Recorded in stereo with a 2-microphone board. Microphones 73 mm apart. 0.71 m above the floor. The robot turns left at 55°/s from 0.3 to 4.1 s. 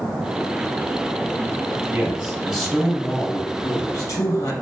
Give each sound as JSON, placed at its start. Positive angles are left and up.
{"t": 1.9, "sound": "a man speaking", "azimuth_deg": -145, "distance_m": 1.2}